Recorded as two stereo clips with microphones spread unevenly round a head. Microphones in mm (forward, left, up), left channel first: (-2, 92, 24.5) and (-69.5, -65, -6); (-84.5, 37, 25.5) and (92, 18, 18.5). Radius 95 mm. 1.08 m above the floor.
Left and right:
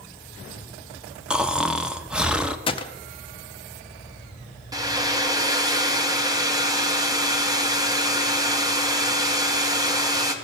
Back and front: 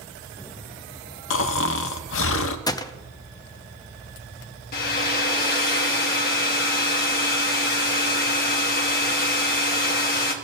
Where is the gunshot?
120° left, 0.5 m.